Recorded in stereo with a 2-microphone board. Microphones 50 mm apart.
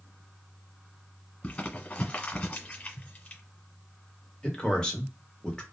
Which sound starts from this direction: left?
Crumpling, at 1.4 s.